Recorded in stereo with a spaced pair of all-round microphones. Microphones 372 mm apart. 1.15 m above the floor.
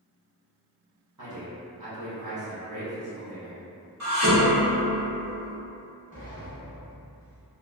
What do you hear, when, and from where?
1.2 s a man speaking: 55° right (ahead or behind), 1.0 m
4.0 s dishes clattering: 45° right (ahead or behind), 1.0 m
6.1 s a sliding door: 20° left (ahead or behind), 1.1 m